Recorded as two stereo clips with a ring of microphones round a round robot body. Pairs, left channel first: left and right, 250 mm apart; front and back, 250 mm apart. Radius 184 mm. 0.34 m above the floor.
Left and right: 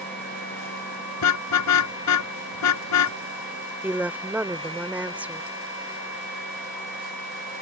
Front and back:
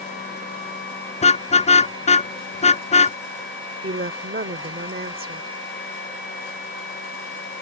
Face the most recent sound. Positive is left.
turn(degrees=-170)